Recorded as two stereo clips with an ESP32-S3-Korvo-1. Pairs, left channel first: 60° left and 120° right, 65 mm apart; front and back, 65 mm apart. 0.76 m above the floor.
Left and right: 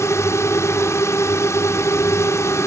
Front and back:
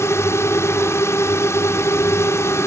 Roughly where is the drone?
Ahead left.